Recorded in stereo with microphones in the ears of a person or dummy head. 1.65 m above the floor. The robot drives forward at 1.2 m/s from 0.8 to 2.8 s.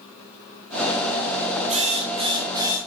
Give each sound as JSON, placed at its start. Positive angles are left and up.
{"t": 1.7, "sound": "a drill", "side_deg": -30, "distance_m": 1.3}